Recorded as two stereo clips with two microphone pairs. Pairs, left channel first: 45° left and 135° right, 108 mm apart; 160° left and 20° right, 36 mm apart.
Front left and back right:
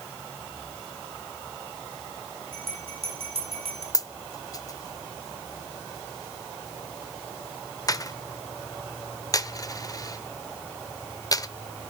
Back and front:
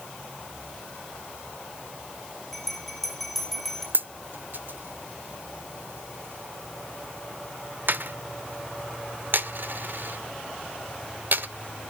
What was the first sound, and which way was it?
A bell, 120° right.